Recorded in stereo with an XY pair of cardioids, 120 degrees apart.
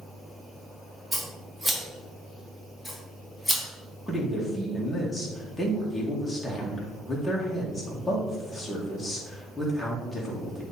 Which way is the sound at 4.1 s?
10° left.